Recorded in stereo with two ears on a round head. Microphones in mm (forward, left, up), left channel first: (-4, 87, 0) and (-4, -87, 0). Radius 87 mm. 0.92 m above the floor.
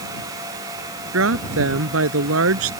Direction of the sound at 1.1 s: 80° right.